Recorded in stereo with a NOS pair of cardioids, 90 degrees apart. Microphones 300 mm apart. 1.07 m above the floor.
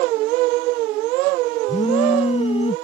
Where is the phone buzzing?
20° left.